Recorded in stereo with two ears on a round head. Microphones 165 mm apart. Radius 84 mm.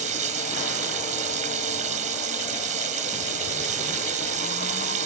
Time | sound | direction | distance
0.0 | running water | 40° right (ahead or behind) | ?